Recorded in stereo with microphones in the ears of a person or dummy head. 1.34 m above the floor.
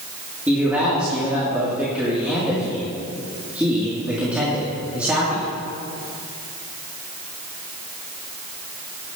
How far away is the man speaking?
About 2.5 m.